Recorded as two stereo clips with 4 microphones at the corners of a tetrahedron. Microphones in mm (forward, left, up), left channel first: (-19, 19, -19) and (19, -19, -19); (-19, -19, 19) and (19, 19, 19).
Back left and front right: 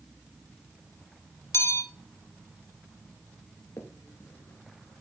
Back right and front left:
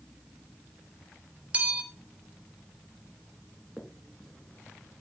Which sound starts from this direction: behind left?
A finger snap, at 3.8 s.